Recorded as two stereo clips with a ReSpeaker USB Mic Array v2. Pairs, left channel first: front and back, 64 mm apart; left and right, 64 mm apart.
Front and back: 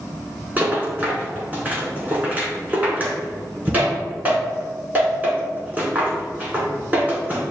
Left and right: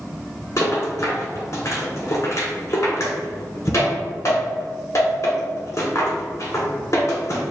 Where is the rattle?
115° left, 1.3 m.